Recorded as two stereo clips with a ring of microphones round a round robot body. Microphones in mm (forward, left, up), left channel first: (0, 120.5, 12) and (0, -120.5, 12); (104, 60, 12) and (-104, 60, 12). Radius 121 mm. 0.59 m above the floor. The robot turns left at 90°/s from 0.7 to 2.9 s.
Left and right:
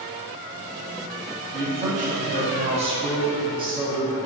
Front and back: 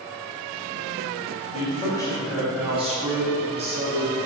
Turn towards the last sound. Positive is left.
turn(degrees=-145)